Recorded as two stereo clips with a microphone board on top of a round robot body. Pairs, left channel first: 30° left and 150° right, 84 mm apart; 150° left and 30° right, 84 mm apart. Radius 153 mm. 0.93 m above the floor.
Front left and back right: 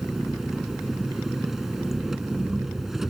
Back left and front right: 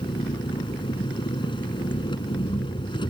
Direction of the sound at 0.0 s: 125° left.